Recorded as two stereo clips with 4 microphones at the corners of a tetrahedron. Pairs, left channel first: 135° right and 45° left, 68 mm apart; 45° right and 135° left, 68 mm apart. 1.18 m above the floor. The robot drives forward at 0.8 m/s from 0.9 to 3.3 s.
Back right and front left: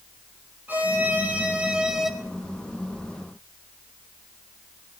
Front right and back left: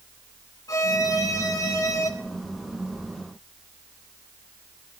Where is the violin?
15° right, 1.7 m; by 2.1 s 40° right, 0.9 m.